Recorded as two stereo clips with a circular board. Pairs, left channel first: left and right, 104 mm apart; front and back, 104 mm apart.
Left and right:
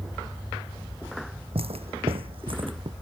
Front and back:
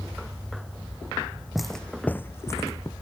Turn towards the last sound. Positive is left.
turn(degrees=-55)